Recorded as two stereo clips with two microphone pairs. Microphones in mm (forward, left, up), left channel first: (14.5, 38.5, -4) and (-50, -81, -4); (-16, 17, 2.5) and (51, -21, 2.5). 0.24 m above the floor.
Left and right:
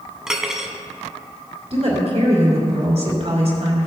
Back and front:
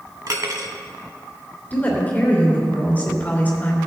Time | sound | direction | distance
0.3 | cutlery clinking | 35° right | 0.9 m
1.7 | a woman speaking | 145° right | 2.5 m